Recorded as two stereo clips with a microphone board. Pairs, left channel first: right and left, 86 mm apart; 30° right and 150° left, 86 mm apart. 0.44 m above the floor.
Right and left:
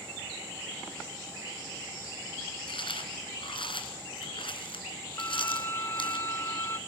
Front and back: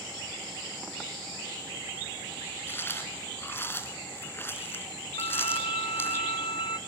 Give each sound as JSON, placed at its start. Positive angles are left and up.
{"t": 2.7, "sound": "chewing", "azimuth_deg": -95, "distance_m": 2.5}
{"t": 5.2, "sound": "a violin", "azimuth_deg": -30, "distance_m": 0.6}